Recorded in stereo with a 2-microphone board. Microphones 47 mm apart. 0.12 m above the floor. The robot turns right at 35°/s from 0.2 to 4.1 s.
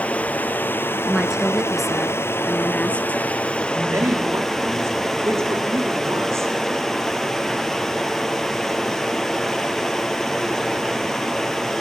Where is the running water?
35° left, 1.7 m; by 11.8 s 175° left, 1.7 m.